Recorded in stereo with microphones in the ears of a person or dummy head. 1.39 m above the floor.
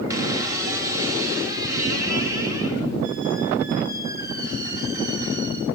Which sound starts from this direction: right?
A squeak, at 0.1 s.